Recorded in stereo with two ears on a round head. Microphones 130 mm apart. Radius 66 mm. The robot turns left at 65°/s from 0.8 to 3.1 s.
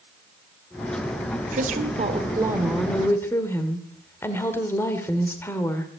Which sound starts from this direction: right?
A woman speaking, at 1.5 s.